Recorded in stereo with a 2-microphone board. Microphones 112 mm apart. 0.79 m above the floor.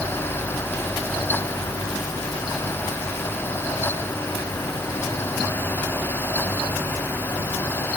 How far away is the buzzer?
No buzzer in this recording.